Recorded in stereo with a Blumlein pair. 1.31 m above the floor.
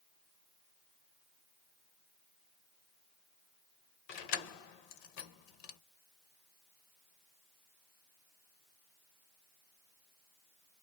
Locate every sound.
4.1 s keys jangling: 45° left, 0.7 m